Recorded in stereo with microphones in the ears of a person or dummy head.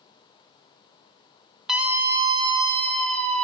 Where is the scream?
5° right (ahead or behind), 1.0 m; by 3.4 s 40° right (ahead or behind), 1.9 m.